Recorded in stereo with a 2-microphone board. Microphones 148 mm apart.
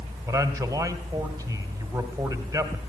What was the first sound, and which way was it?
A man speaking, 20° right (ahead or behind).